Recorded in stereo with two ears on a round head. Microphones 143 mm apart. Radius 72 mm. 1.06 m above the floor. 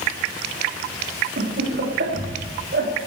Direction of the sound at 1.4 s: 75° right (ahead or behind).